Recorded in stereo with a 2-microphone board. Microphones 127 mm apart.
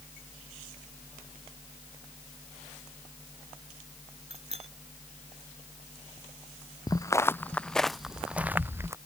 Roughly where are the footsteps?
Left.